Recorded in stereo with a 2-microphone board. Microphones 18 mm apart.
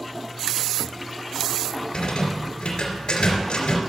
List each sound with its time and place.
1.9 s a rattle: 75° left (ahead or behind), 3 m